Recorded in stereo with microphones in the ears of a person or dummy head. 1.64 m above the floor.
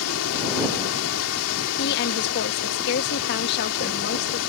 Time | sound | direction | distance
0.0 | running water | 80° left | ?
1.8 | a woman speaking | 60° left (ahead or behind) | ?